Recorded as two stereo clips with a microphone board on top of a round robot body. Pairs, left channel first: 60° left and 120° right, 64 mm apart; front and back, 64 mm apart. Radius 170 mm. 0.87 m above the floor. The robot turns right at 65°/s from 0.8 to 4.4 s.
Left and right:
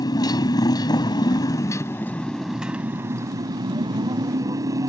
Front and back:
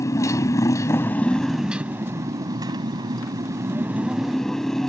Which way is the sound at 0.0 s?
40° left.